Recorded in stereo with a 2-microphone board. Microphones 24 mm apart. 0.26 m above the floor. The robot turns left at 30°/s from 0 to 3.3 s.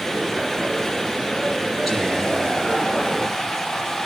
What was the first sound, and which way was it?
Whispering, 175° left.